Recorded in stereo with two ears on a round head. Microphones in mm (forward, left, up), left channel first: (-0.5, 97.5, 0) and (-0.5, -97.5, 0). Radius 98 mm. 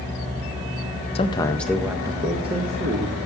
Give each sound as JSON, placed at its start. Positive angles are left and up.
{"t": 1.1, "sound": "a man speaking", "side_deg": 25, "distance_m": 0.6}